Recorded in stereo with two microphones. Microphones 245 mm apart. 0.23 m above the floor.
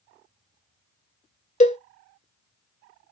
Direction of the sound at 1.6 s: 30° left (ahead or behind).